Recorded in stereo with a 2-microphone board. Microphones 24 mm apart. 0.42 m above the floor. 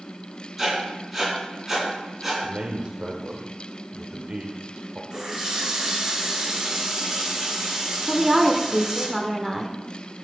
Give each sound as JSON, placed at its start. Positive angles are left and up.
{"t": 0.6, "sound": "writing", "side_deg": -15, "distance_m": 4.0}
{"t": 2.4, "sound": "a man speaking", "side_deg": -40, "distance_m": 0.9}
{"t": 5.1, "sound": "a running tap", "side_deg": -25, "distance_m": 3.5}
{"t": 8.1, "sound": "a woman speaking", "side_deg": -10, "distance_m": 1.0}